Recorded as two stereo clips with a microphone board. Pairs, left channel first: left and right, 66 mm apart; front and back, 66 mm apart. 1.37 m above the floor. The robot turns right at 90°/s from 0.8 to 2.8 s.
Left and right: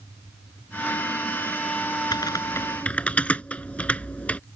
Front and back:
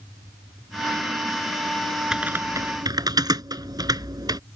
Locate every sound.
2.1 s typing on a keyboard: 100° left; by 4.4 s 160° left